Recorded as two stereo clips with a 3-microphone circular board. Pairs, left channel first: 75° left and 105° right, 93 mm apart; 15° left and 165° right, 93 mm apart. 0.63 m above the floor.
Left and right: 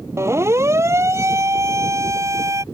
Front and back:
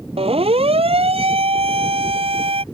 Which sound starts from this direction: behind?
A siren, at 0.2 s.